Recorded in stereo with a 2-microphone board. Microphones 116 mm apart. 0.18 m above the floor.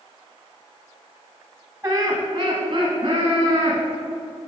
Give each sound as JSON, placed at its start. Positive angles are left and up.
{"t": 1.8, "sound": "laughter", "side_deg": -15, "distance_m": 1.2}